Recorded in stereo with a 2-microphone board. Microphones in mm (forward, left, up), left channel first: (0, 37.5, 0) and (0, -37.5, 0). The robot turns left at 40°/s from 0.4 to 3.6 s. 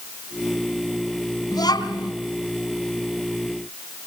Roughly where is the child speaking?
Left.